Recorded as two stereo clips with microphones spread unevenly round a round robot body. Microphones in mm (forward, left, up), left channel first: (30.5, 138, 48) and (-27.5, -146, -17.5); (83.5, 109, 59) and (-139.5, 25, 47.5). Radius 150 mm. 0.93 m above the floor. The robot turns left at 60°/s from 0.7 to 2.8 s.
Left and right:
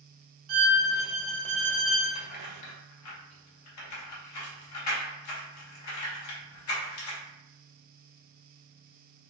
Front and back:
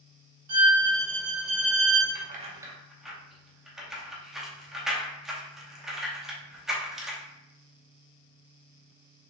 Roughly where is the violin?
Behind right.